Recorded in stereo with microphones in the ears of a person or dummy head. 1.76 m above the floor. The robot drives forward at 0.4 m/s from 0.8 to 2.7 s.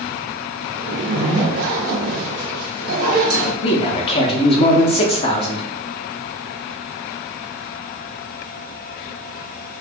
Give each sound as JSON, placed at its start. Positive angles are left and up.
{"t": 0.8, "sound": "a zipper", "side_deg": -70, "distance_m": 0.7}
{"t": 3.6, "sound": "a man speaking", "side_deg": 30, "distance_m": 0.5}